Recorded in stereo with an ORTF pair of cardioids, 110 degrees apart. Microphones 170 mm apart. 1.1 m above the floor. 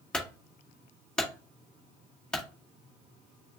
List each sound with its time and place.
0.1 s a clunk: 5° left, 1.8 m